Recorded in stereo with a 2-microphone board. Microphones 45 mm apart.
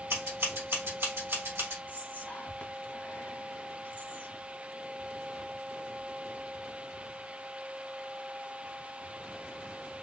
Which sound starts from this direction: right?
Scissors, at 0.1 s.